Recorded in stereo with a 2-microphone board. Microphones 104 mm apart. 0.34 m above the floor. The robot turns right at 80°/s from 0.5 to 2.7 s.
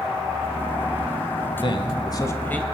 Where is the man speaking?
80° left, 1.4 m; by 2.6 s 165° left, 1.4 m.